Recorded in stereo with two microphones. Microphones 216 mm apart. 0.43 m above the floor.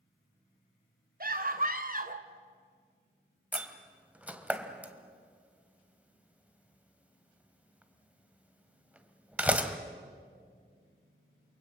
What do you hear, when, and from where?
1.2 s a scream: 45° right (ahead or behind), 2 m; by 2.3 s 40° right (ahead or behind), 1.5 m
3.5 s a door slam: 5° right (ahead or behind), 1.5 m